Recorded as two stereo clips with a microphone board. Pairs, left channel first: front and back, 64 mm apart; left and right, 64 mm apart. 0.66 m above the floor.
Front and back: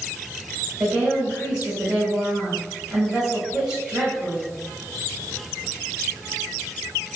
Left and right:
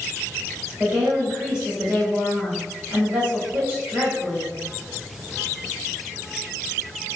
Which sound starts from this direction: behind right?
A woman speaking, at 0.8 s.